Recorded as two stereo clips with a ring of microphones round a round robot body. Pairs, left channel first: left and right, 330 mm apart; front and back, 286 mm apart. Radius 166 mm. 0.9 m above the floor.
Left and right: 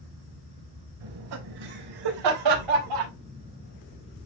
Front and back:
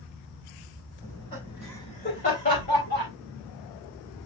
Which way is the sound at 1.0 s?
80° right.